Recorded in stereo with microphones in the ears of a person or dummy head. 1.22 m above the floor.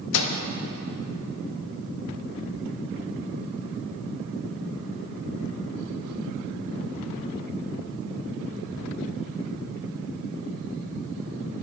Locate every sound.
0.1 s a microwave: 75° left (ahead or behind), 0.9 m